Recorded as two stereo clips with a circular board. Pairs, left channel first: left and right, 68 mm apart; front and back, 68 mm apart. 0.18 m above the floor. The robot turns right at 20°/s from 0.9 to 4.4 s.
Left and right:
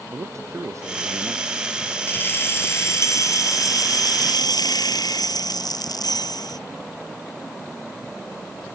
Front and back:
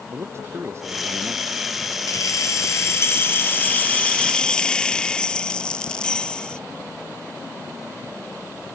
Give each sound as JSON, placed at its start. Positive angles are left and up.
{"t": 0.1, "sound": "a man speaking", "azimuth_deg": -130}
{"t": 2.1, "sound": "keys jangling", "azimuth_deg": 30}